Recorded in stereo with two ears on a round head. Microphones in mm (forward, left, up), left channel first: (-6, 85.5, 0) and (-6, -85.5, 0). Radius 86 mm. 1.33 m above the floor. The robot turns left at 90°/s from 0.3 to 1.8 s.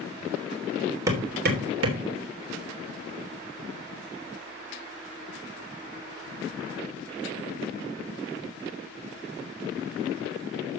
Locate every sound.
1.1 s hammering: 15° right (ahead or behind), 3 m; by 2.0 s 80° right, 3 m